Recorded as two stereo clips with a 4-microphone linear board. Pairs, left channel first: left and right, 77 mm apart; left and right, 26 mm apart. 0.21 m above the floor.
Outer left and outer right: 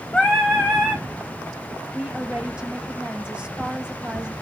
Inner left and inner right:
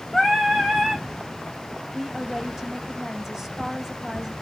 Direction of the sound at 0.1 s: Centre (ahead or behind).